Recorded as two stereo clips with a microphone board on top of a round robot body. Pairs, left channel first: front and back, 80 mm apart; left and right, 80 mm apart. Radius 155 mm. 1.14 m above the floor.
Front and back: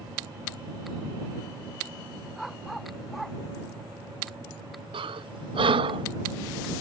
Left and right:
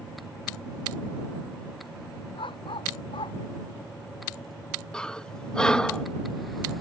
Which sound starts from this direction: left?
A dog barking, at 2.4 s.